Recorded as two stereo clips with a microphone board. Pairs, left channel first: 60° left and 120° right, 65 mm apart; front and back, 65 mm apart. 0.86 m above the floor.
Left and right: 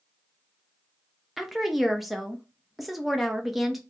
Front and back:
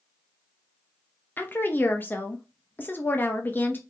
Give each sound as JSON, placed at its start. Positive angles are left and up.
{"t": 1.4, "sound": "a woman speaking", "azimuth_deg": -30, "distance_m": 0.8}